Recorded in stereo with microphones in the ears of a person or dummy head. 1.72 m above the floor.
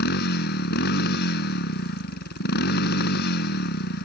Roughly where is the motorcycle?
Left.